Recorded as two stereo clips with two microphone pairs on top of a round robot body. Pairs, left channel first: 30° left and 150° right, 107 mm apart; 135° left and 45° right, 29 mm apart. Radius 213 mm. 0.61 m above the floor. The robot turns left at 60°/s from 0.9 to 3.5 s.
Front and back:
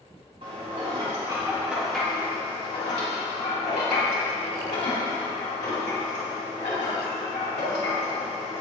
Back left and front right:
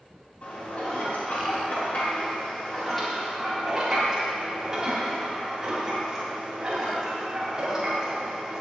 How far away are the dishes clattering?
About 3.5 m.